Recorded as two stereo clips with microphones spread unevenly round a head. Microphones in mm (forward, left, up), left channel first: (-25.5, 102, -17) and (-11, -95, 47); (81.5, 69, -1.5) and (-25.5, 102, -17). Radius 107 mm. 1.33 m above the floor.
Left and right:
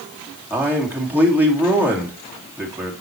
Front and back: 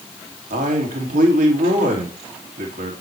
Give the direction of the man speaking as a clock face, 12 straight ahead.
6 o'clock.